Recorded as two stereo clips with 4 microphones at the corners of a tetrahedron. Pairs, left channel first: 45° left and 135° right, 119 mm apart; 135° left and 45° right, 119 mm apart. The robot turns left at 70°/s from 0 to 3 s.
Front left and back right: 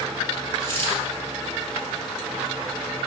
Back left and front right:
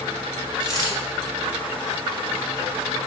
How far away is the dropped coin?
About 3 m.